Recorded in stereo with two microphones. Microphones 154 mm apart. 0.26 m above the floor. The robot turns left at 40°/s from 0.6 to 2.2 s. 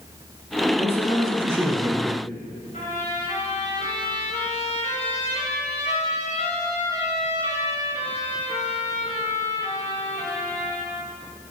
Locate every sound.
0.8 s a man speaking: 120° left, 1.5 m; by 2.2 s 60° left, 1.5 m
2.7 s a trumpet: 50° left (ahead or behind), 3 m